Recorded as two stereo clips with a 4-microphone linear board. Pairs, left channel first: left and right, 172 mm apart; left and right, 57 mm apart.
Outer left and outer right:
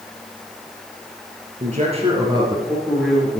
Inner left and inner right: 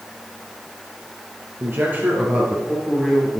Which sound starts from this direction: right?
A man speaking, at 1.6 s.